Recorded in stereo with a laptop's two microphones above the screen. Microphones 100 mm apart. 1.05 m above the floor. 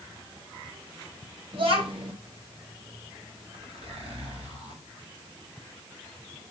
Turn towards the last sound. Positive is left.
turn(degrees=-80)